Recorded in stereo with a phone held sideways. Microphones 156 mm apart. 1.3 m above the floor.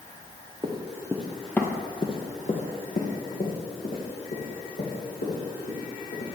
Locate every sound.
0.6 s running footsteps: 30° right (ahead or behind), 1.8 m; by 6.3 s 75° left (ahead or behind), 6 m